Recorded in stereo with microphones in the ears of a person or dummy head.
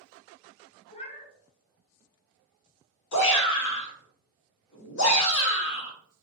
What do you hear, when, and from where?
0.9 s a cat meowing: 35° left (ahead or behind), 0.8 m
3.1 s a shout: 65° left (ahead or behind), 1.9 m